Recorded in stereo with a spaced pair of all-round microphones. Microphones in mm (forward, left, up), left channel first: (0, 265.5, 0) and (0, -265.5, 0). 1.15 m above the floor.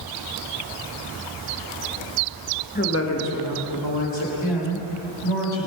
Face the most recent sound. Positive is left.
turn(degrees=65)  # may be behind; listen again after turning